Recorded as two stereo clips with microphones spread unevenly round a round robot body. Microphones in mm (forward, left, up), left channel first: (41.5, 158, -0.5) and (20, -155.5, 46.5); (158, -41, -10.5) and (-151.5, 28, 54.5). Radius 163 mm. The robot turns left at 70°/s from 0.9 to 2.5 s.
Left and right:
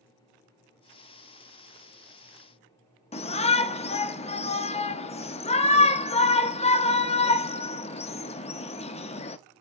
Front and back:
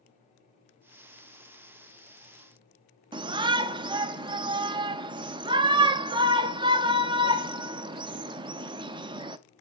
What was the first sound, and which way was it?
A shout, 85° left.